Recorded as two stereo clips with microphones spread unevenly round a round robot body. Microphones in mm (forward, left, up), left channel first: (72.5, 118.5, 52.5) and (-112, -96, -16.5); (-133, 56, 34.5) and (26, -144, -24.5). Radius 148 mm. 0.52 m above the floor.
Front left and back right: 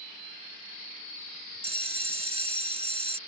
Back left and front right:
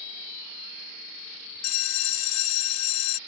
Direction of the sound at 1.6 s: 160° left.